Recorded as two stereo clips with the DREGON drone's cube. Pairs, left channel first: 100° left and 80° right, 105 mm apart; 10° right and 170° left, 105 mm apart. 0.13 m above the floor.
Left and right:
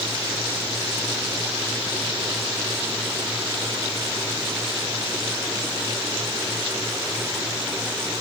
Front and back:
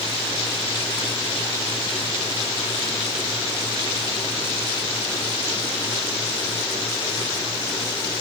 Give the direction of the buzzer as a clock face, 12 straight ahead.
I don't hear a buzzer.